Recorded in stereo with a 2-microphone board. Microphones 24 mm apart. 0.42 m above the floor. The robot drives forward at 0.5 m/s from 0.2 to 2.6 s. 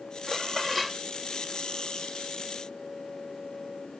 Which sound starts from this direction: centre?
Dishes clattering, at 0.3 s.